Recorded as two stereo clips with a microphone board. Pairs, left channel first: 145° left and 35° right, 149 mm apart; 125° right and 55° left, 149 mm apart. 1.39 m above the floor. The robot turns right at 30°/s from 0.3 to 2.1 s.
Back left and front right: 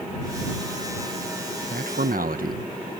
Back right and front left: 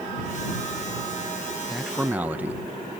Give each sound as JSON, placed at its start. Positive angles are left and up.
{"t": 1.7, "sound": "a man speaking", "azimuth_deg": -35}